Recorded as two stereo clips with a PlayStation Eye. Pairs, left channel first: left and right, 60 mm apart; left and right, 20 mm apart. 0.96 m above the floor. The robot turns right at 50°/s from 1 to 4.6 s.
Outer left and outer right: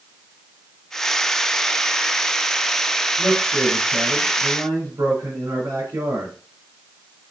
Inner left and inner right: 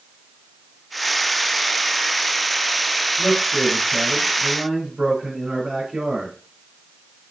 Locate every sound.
3.2 s a man speaking: 150° right, 4.5 m; by 6.3 s 80° right, 4.5 m